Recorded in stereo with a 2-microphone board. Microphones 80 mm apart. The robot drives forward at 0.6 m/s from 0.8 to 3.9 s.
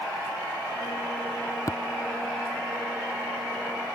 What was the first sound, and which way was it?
Tapping, 45° left (ahead or behind).